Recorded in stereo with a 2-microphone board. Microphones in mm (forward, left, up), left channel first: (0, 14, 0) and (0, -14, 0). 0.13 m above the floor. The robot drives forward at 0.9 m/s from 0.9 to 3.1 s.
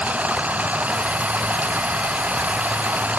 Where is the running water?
70° right (ahead or behind).